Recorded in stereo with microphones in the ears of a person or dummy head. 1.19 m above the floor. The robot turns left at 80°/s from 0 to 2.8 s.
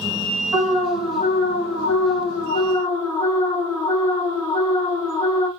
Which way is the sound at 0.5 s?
160° right.